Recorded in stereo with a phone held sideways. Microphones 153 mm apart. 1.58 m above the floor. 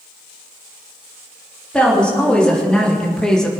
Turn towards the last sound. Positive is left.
turn(degrees=5)  # may be behind; listen again after turning